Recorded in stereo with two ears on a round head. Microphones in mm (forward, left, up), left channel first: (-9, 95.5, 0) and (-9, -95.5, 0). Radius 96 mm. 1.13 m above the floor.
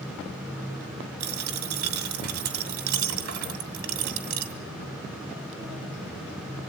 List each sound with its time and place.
1.2 s a dropped coin: 75° right (ahead or behind), 2 m